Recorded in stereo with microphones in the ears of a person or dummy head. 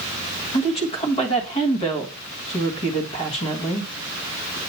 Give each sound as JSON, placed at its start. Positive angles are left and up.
{"t": 0.5, "sound": "a woman speaking", "side_deg": 30, "distance_m": 1.4}